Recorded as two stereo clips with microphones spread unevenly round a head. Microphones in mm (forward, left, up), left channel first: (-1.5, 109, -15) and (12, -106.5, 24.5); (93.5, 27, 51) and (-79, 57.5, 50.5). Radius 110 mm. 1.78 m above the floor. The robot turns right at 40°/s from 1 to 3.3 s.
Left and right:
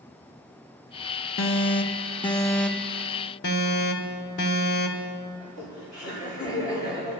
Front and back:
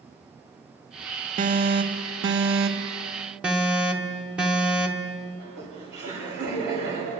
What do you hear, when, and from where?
1.4 s an alarm: 125° left, 0.8 m; by 3.0 s 170° right, 0.8 m
3.4 s an alarm: 85° left, 1.2 m
5.4 s laughter: 170° left, 5.5 m